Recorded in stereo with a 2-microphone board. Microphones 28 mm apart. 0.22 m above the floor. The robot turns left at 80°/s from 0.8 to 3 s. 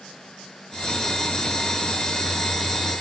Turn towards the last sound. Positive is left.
No sound to turn to.